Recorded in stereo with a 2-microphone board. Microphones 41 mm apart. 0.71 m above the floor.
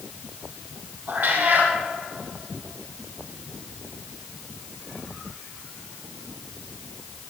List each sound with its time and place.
1.1 s a cat meowing: 50° right (ahead or behind), 4.5 m